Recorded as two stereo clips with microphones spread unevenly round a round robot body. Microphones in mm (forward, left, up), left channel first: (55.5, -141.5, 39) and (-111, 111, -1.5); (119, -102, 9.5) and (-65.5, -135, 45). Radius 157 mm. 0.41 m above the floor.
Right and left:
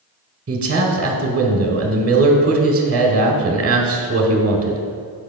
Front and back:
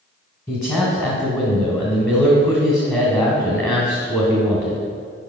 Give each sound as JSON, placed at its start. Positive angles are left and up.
{"t": 0.5, "sound": "a man speaking", "azimuth_deg": 80, "distance_m": 1.1}